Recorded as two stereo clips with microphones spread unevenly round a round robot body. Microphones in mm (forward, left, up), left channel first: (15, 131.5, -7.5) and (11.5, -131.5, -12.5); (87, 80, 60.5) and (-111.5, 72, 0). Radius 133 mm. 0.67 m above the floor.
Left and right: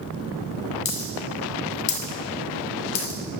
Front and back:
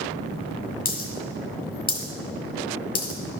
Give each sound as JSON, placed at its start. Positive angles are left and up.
{"t": 0.8, "sound": "a dropped coin", "azimuth_deg": 45, "distance_m": 1.8}